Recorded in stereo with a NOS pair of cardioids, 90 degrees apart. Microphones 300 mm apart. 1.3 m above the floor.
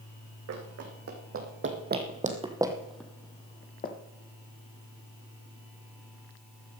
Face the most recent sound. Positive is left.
turn(degrees=35)